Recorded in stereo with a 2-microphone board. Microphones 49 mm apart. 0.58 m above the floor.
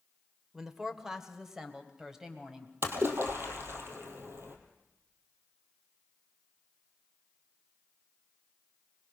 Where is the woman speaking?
10° right (ahead or behind), 1.6 m.